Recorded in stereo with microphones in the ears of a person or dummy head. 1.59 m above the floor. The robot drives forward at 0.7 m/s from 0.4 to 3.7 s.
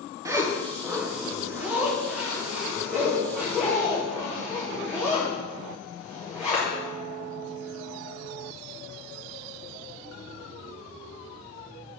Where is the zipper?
15° right (ahead or behind), 0.6 m; by 6.7 s 5° right (ahead or behind), 3 m.